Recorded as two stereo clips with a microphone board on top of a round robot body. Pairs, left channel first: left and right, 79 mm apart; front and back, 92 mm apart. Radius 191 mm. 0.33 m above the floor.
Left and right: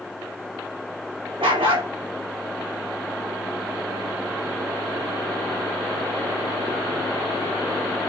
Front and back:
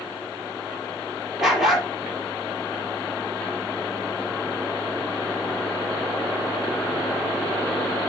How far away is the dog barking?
About 3 m.